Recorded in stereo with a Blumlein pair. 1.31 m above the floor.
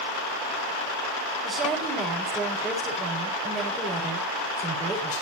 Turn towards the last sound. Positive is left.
turn(degrees=-20)